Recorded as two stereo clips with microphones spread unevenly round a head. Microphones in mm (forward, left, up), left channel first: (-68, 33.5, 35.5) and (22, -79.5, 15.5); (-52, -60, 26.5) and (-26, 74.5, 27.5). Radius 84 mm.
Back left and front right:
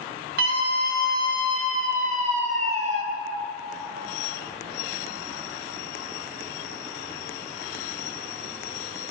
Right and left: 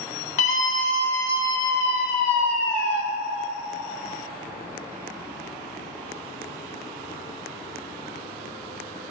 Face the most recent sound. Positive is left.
turn(degrees=-95)